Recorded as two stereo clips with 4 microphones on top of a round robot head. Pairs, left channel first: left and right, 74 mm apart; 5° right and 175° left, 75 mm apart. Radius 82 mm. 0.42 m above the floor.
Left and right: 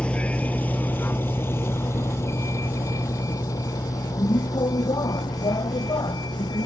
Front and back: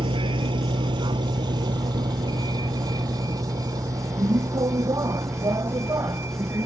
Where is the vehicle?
165° left; by 6.7 s 125° left.